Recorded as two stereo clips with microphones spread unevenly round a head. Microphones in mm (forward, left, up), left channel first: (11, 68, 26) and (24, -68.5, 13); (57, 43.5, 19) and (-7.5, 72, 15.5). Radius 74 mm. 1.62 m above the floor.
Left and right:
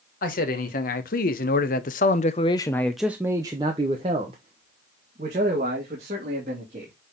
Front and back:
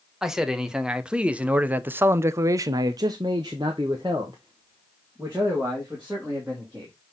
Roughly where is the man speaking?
Left.